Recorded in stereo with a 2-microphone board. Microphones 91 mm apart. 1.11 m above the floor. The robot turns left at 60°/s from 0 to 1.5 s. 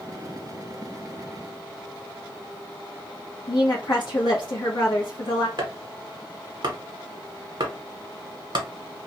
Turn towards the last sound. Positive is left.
turn(degrees=-55)  # may be behind; listen again after turning